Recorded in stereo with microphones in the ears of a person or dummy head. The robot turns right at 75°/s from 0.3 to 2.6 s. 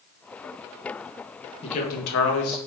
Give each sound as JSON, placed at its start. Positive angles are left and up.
{"t": 1.6, "sound": "a man speaking", "azimuth_deg": 35, "distance_m": 1.1}